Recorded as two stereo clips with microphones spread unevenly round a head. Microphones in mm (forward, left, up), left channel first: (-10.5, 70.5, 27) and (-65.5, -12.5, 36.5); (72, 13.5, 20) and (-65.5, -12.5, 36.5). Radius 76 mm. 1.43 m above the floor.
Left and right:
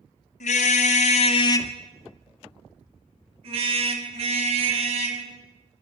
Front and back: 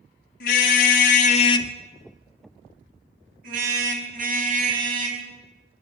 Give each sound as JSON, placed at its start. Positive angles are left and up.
{"t": 0.4, "sound": "a car horn", "azimuth_deg": 40, "distance_m": 2.5}